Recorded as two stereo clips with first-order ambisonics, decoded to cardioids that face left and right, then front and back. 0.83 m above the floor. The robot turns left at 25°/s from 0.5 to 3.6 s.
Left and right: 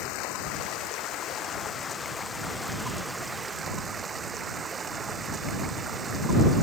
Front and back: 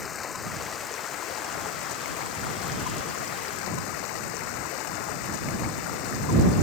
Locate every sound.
0.0 s running water: 60° left; by 6.6 s 15° right